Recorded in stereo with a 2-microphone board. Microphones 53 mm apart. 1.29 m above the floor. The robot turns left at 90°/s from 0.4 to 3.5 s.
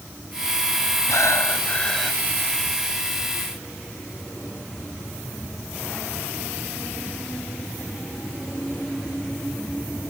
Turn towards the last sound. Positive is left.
turn(degrees=-135)